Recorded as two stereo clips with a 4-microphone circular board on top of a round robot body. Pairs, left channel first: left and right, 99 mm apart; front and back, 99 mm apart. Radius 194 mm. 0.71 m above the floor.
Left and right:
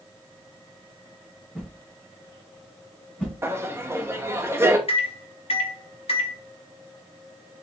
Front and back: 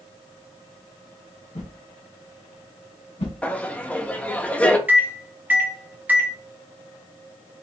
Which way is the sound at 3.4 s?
60° right.